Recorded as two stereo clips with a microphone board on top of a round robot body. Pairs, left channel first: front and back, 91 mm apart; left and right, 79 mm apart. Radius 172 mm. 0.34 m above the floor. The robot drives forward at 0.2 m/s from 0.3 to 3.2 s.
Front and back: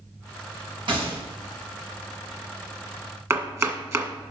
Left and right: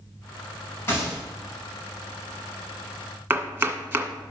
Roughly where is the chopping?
Behind right.